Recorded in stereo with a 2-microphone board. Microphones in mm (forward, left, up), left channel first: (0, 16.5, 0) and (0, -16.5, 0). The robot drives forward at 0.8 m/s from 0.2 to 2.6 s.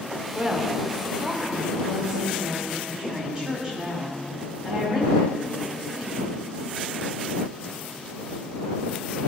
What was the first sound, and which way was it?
A woman speaking, 40° right (ahead or behind).